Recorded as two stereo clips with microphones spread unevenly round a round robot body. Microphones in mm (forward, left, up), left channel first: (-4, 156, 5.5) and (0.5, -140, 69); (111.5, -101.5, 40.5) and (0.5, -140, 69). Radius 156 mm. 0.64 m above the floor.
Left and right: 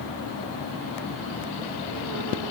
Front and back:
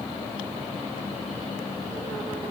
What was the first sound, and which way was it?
Only background noise.